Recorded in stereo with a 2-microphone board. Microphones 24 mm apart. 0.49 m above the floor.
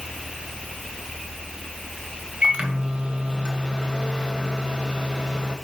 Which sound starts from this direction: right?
A microwave, at 2.4 s.